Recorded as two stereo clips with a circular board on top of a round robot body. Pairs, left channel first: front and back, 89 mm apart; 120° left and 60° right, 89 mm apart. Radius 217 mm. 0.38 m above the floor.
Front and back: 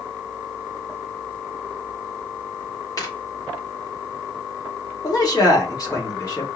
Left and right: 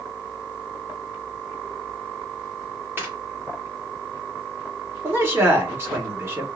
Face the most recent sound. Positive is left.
turn(degrees=-10)